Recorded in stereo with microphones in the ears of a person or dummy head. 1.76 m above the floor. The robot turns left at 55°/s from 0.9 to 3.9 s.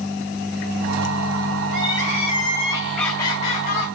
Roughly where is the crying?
Behind right.